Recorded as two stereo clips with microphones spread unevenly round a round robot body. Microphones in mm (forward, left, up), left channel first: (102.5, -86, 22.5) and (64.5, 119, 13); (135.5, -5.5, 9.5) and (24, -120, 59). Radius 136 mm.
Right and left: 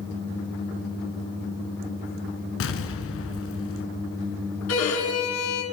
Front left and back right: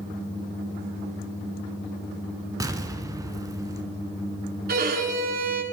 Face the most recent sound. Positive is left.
turn(degrees=-115)